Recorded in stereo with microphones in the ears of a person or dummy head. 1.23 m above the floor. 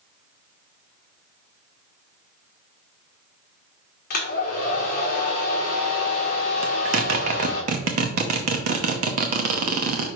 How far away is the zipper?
About 0.7 m.